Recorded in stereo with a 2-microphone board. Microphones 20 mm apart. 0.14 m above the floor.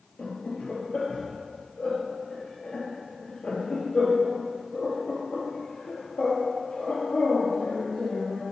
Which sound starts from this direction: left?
Laughter, at 0.2 s.